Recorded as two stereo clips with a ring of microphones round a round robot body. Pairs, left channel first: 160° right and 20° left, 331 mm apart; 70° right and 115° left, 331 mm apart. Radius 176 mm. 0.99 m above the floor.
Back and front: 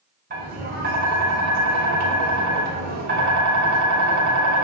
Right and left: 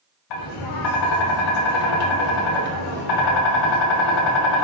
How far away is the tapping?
About 0.6 m.